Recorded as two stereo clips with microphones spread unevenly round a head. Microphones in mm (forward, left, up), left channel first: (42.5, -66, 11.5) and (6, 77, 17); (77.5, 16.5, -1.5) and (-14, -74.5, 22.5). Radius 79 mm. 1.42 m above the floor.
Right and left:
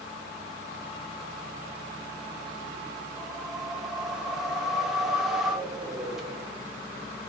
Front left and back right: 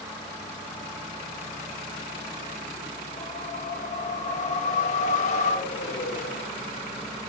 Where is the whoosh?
20° left, 1.6 m.